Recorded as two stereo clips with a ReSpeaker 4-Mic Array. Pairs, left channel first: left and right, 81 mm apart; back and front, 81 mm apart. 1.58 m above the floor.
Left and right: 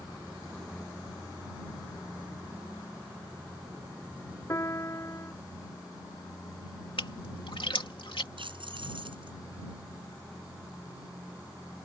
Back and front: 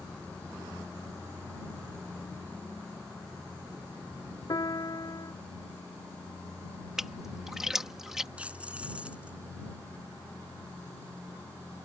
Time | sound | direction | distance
4.5 | a piano | 145° left | ?
7.0 | a splash | 85° left | ?
8.4 | keys jangling | 75° right | ?